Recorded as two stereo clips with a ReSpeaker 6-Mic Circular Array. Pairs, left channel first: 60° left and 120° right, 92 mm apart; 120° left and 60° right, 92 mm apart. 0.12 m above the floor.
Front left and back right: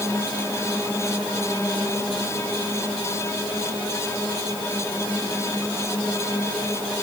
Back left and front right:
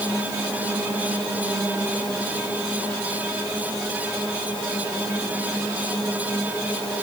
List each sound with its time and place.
Only background noise.